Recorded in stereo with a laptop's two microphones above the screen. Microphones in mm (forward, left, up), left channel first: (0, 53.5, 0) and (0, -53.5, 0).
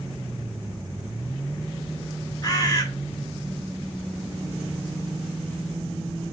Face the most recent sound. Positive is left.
turn(degrees=35)  # may be behind; listen again after turning